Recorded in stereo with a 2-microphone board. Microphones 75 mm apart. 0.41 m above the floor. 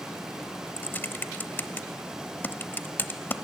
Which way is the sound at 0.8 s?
25° left (ahead or behind).